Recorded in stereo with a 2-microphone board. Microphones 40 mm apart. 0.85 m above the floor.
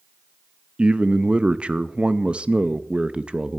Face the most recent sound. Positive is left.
turn(degrees=-25)  # may be behind; listen again after turning